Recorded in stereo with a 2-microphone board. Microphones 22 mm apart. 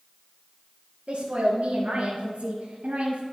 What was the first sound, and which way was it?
A woman speaking, 70° right (ahead or behind).